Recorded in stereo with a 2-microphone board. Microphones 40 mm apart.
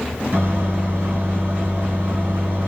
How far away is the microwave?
About 1.7 m.